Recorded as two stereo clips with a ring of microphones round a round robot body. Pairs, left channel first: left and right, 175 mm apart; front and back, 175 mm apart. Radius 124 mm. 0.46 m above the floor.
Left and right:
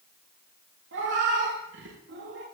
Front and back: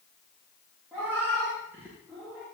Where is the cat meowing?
95° right, 9.5 m.